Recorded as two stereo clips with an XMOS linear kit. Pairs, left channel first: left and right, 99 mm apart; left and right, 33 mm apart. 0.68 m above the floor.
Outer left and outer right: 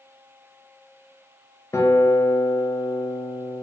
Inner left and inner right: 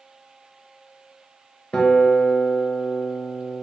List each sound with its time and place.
1.7 s a guitar: 30° left (ahead or behind), 0.5 m